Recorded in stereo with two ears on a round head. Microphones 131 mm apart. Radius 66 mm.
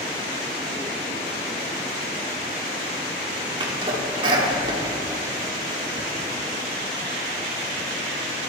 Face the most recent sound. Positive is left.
turn(degrees=-35)  # may be behind; listen again after turning